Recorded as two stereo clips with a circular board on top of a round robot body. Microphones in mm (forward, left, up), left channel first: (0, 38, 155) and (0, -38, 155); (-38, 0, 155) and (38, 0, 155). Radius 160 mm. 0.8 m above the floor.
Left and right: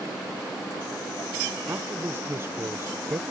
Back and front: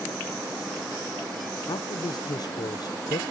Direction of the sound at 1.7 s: 150° right.